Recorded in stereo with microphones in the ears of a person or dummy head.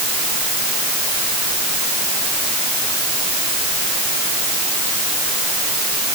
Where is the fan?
No fan in this recording.